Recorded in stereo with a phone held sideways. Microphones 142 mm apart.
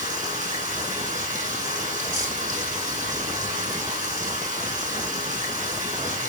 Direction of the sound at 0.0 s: 70° right (ahead or behind).